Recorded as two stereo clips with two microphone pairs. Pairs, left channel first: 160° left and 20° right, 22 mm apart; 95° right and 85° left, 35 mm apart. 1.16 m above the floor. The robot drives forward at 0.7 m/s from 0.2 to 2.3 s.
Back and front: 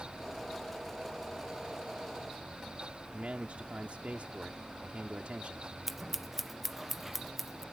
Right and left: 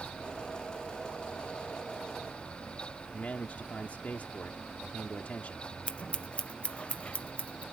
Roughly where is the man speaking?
Ahead right.